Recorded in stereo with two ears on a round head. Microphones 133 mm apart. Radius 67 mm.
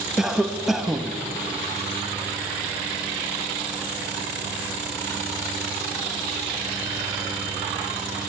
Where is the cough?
5° right (ahead or behind), 1.0 m.